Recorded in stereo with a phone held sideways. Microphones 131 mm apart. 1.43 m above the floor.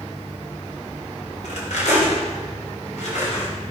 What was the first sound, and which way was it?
Cutlery clinking, 85° left.